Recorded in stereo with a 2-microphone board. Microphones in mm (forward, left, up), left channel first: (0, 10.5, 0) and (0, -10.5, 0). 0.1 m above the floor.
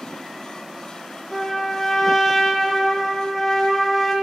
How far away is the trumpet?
About 0.7 m.